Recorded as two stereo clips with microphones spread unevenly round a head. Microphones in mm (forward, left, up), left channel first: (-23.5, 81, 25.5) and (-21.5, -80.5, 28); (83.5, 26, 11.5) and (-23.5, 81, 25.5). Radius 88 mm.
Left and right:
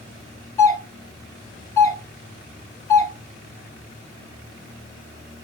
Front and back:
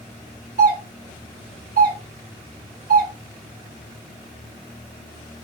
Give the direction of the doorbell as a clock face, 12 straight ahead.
7 o'clock.